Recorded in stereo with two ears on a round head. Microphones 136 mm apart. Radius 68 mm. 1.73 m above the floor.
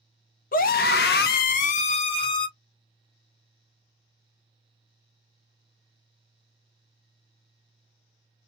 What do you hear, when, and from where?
0.5 s a scream: 60° left (ahead or behind), 0.7 m; by 2.5 s 30° left (ahead or behind), 1.0 m